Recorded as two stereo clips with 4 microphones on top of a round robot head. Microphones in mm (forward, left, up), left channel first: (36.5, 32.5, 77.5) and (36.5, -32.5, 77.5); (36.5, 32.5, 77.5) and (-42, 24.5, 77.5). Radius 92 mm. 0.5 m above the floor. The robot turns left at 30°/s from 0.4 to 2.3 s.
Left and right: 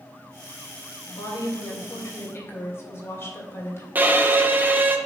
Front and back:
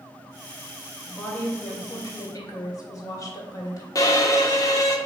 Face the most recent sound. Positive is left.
turn(degrees=-30)